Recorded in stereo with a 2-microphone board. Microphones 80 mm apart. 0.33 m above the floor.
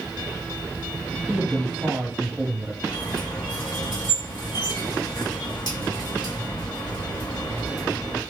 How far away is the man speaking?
About 1.2 m.